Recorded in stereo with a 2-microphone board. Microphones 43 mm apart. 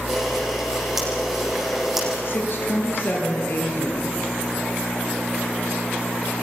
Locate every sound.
0.1 s a camera shutter: 5° right (ahead or behind), 8 m
2.2 s a woman speaking: 55° left (ahead or behind), 6.5 m